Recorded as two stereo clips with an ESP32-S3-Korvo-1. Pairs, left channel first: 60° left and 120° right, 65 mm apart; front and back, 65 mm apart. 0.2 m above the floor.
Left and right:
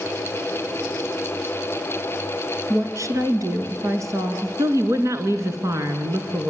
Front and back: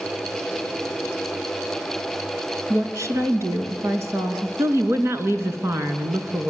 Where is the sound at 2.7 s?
150° right, 3 m.